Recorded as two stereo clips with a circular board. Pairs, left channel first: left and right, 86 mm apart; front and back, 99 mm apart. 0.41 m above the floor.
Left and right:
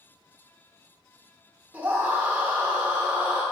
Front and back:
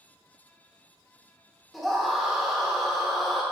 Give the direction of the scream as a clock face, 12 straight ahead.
3 o'clock.